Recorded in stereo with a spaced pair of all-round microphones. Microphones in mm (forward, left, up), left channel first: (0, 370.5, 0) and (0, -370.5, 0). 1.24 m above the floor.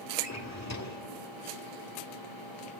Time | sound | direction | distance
0.2 | a drawer | 20° left (ahead or behind) | 1.8 m